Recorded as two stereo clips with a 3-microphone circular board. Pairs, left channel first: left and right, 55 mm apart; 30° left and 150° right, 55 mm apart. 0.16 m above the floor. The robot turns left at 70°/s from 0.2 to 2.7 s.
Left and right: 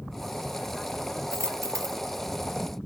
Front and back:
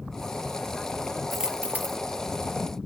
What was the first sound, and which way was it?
A dropped coin, 60° right.